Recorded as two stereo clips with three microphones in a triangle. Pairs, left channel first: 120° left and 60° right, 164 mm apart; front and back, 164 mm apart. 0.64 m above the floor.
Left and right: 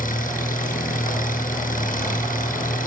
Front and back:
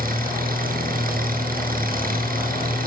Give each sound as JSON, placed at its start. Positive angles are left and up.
{"t": 0.0, "sound": "an engine running", "azimuth_deg": 155, "distance_m": 8.0}